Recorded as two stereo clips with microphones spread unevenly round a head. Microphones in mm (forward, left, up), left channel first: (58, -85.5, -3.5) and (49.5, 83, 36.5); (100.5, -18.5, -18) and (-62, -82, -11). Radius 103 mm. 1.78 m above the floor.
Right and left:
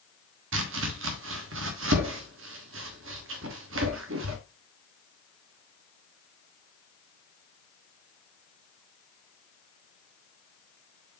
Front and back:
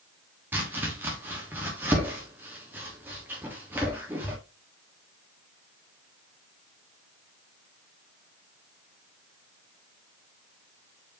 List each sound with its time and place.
0.5 s chopping: 120° left, 1.3 m